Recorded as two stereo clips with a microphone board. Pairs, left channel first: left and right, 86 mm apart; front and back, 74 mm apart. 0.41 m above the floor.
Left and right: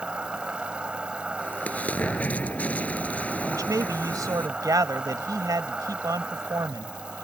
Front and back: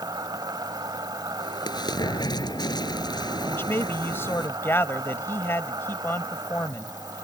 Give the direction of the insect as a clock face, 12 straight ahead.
6 o'clock.